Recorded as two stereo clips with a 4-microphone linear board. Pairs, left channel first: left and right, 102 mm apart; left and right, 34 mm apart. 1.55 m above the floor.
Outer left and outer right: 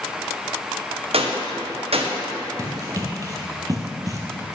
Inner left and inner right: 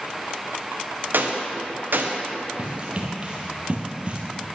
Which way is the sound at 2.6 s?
35° right (ahead or behind).